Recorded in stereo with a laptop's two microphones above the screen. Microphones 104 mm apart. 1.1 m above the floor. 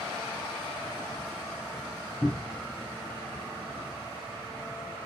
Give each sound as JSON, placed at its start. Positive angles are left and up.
{"t": 2.2, "sound": "a cupboard door", "side_deg": 5, "distance_m": 0.6}